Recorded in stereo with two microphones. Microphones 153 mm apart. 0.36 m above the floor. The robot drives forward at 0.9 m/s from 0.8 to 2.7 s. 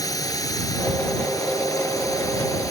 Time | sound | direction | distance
0.0 | a drone | 20° left (ahead or behind) | ?